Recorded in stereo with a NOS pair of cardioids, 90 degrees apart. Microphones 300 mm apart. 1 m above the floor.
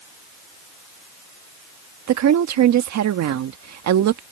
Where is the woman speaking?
60° right.